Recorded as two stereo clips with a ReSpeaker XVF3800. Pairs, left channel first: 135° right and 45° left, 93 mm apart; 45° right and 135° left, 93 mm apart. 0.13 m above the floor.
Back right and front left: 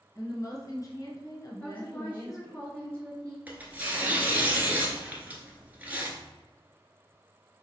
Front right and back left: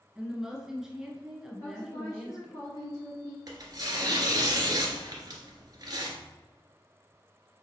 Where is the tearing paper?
115° left, 1.0 m.